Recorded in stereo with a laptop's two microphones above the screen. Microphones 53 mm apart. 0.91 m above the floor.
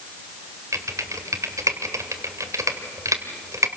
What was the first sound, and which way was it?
Typing on a keyboard, 80° right.